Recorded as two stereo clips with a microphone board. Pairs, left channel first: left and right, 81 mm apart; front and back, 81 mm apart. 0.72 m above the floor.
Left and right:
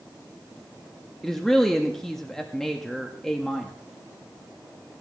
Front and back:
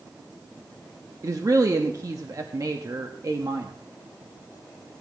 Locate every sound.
1.2 s a woman speaking: 175° left, 0.8 m